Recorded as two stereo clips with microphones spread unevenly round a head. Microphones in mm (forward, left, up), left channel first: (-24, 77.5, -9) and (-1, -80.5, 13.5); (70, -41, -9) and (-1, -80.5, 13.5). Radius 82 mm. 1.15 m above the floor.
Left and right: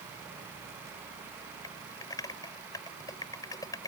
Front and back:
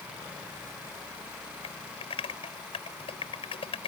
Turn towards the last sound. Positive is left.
turn(degrees=25)